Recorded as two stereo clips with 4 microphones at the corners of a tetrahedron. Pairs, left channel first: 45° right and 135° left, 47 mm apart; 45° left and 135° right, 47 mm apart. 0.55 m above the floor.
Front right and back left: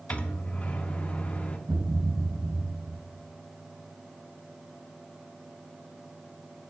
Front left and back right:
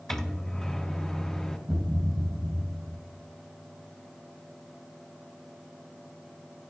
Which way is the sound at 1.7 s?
155° left.